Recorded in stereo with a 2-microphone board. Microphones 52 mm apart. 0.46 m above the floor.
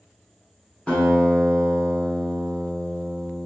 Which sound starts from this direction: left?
A guitar, at 0.9 s.